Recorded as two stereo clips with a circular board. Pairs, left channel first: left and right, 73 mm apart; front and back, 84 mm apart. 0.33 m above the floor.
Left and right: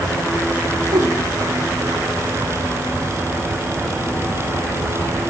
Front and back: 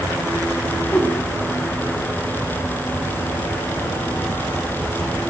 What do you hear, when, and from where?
0.9 s a whoosh: 75° right, 1.1 m